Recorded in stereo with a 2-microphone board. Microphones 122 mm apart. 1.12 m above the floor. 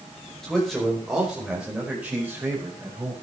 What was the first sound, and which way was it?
A man speaking, 5° left (ahead or behind).